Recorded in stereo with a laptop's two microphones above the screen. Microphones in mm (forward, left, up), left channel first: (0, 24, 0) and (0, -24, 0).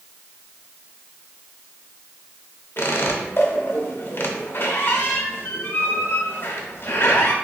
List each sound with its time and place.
2.8 s a squeak: 45° left (ahead or behind), 0.7 m